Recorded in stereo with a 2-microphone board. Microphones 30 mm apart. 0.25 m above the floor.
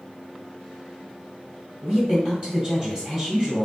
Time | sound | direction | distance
1.8 | a woman speaking | 20° right (ahead or behind) | 1.4 m